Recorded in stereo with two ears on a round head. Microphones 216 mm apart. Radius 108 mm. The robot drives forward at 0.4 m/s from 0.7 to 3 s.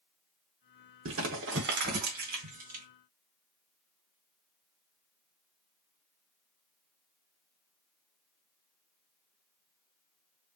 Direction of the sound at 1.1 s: 55° right (ahead or behind).